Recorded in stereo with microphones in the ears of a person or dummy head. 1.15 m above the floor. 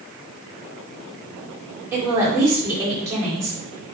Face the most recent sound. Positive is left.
turn(degrees=-10)  # may be behind; listen again after turning